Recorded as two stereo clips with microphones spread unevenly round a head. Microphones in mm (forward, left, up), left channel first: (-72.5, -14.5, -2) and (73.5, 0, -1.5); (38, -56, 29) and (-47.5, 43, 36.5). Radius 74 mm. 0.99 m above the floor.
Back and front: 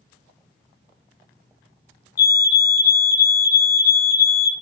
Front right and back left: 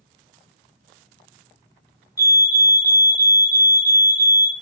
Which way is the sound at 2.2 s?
110° right.